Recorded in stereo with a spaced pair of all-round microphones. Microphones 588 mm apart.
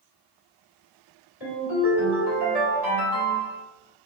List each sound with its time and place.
1.4 s a ringtone: 80° left, 1.9 m